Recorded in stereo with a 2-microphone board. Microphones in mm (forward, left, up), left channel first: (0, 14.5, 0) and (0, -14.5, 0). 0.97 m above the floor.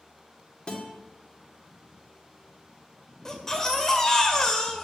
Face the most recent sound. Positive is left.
turn(degrees=20)  # may be behind; listen again after turning